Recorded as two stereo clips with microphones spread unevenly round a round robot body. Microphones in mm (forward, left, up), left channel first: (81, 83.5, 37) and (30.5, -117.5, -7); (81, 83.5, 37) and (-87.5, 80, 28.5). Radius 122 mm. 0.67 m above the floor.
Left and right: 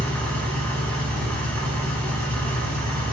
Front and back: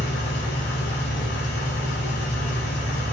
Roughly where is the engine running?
Ahead.